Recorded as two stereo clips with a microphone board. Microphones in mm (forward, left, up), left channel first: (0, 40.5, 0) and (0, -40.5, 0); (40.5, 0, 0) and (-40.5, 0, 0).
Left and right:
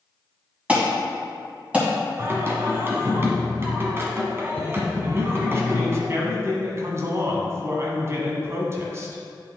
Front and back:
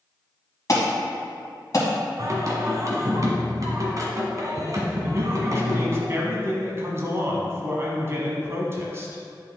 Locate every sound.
0.7 s an alarm: 20° right, 2.5 m
2.2 s singing: 145° right, 1.4 m
5.0 s a man speaking: 135° right, 1.5 m